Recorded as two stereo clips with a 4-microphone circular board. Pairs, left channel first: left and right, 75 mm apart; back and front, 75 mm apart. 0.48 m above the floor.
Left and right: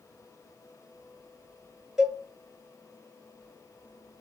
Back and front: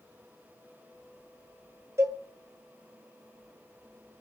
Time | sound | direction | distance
2.0 | a cowbell | 10° right | 1.2 m